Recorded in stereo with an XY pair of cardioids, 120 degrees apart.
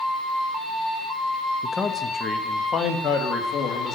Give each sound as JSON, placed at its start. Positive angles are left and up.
{"t": 1.6, "sound": "a man speaking", "azimuth_deg": 15, "distance_m": 1.0}